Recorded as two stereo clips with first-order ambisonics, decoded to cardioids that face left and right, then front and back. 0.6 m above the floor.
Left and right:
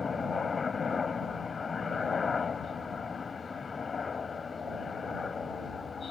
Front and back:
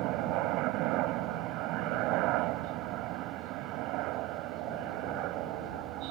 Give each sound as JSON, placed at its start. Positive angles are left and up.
{"t": 0.0, "sound": "a helicopter", "azimuth_deg": 160}